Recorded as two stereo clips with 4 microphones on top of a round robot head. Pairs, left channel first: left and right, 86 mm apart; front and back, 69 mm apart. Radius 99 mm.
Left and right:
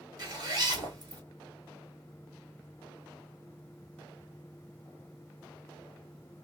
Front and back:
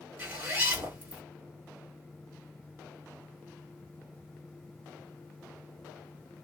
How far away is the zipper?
About 1.7 m.